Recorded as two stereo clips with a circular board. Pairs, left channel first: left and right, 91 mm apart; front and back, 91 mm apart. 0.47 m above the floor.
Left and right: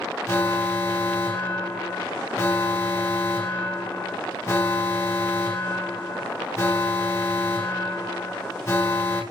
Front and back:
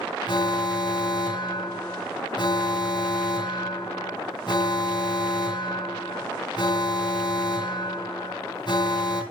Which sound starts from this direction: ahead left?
An alarm, at 0.3 s.